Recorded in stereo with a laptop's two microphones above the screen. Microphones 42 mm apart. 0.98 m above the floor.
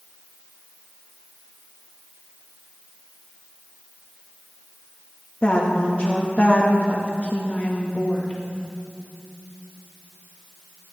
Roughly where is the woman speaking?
Left.